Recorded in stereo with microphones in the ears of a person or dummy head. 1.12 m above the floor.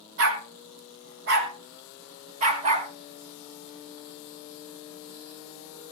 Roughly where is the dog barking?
Right.